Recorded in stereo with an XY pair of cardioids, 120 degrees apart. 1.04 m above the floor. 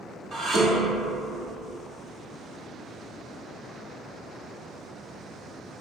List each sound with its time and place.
0.3 s dishes clattering: 45° right, 1.3 m